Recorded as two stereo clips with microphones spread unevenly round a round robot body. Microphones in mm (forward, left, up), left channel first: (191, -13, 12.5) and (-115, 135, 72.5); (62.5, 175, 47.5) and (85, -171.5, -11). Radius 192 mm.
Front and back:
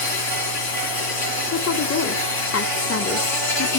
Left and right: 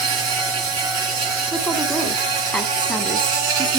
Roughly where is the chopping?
No chopping in this recording.